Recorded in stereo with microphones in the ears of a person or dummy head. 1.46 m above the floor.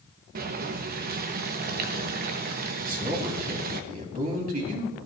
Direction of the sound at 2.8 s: 50° right (ahead or behind).